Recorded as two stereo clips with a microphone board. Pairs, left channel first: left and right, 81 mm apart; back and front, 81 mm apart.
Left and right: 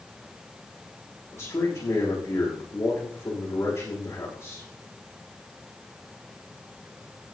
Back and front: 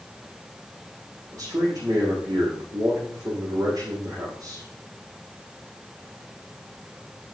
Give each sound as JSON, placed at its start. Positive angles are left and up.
{"t": 1.3, "sound": "a man speaking", "azimuth_deg": 40, "distance_m": 7.5}